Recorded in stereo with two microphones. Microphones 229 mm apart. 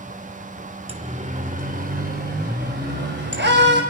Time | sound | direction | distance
0.9 | a siren | 25° right (ahead or behind) | 2 m